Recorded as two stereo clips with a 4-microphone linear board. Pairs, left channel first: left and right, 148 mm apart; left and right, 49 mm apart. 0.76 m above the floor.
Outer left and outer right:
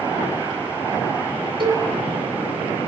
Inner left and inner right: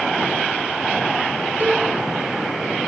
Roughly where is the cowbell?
Right.